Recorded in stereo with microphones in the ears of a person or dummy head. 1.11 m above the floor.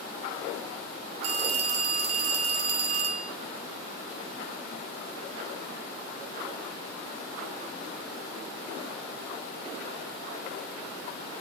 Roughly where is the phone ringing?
Right.